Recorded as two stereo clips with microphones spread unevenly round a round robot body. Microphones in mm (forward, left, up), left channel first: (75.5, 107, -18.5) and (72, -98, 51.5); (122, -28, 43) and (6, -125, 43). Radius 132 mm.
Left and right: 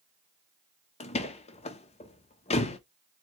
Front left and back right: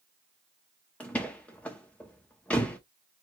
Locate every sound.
1.0 s a door slam: 120° left, 0.6 m